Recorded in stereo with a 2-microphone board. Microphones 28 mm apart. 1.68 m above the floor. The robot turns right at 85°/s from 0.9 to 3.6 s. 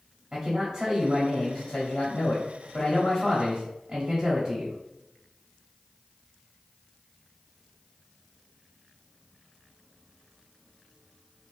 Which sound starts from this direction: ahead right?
A man speaking, at 0.3 s.